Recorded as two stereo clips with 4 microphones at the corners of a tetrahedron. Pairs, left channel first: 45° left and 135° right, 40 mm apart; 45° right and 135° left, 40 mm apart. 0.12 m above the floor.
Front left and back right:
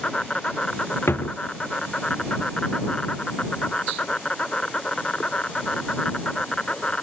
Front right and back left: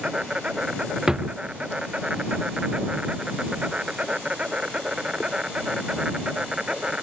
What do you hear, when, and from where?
0.0 s an insect: 90° left
1.1 s a drawer: 60° left